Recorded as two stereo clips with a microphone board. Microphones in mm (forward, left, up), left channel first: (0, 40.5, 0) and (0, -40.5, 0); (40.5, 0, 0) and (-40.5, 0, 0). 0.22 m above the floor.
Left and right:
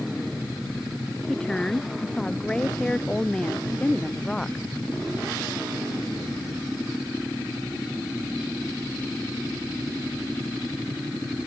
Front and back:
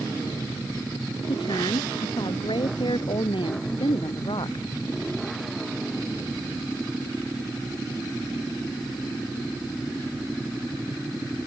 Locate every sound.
1.3 s a woman speaking: 10° left